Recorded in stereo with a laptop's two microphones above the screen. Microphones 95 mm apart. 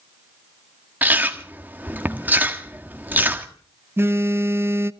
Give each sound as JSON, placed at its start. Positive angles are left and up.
{"t": 1.0, "sound": "chewing", "side_deg": -20, "distance_m": 1.6}
{"t": 4.0, "sound": "a phone buzzing", "side_deg": -25, "distance_m": 0.6}